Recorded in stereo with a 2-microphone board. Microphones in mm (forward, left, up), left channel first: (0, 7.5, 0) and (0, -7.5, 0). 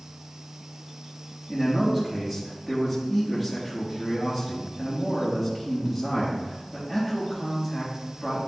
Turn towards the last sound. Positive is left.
turn(degrees=-15)  # may be behind; listen again after turning